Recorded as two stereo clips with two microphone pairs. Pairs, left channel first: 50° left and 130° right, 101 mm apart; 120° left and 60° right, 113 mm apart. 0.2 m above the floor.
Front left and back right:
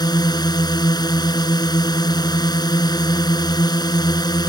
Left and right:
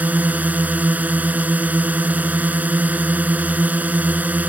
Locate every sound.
0.0 s a drone: 15° left